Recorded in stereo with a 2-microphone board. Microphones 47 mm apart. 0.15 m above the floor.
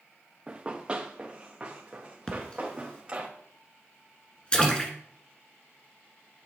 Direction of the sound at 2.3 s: 20° left (ahead or behind).